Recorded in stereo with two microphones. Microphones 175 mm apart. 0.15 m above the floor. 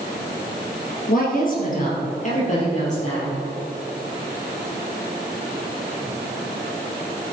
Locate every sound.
1.1 s a woman speaking: 55° left (ahead or behind), 3.5 m; by 3.3 s 40° left (ahead or behind), 5 m